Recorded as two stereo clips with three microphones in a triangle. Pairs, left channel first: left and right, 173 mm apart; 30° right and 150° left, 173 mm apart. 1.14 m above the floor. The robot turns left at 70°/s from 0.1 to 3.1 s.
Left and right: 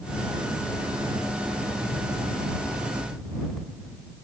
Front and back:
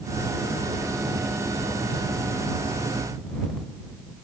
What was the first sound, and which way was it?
Only background noise.